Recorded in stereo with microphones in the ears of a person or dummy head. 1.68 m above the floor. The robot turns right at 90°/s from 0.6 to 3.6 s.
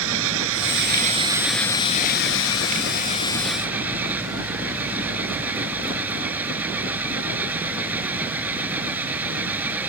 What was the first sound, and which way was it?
An engine running, 80° right.